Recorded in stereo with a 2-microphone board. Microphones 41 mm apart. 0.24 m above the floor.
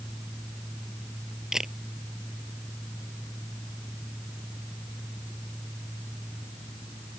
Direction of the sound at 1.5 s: 10° right (ahead or behind).